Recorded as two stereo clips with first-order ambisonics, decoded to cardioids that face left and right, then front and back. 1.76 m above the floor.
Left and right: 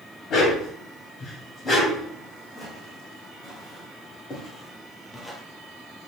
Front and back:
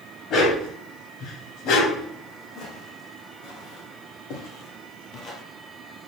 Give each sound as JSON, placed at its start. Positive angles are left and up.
{"t": 0.3, "sound": "a dog barking", "azimuth_deg": 45, "distance_m": 2.5}
{"t": 2.5, "sound": "footsteps", "azimuth_deg": 20, "distance_m": 4.5}